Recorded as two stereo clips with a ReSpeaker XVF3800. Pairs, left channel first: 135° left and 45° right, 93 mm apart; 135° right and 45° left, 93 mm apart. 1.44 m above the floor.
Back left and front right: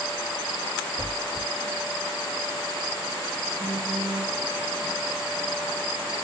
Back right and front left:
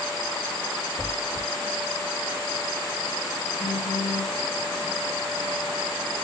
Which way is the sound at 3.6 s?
170° left.